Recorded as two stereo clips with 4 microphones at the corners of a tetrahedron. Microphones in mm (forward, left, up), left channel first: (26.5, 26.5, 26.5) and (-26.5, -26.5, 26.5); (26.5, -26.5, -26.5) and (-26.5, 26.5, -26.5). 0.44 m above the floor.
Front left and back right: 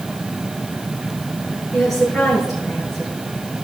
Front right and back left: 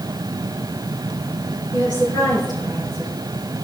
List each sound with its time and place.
1.7 s a woman speaking: 40° right, 5.5 m